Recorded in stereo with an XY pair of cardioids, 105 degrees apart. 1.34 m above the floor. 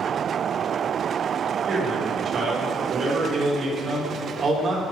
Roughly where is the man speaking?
Ahead right.